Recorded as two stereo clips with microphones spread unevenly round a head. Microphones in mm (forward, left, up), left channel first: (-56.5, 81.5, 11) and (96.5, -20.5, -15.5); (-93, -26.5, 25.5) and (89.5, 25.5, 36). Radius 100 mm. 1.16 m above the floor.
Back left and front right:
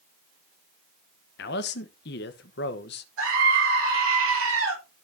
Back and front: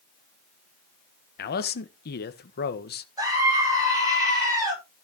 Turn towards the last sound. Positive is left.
turn(degrees=-55)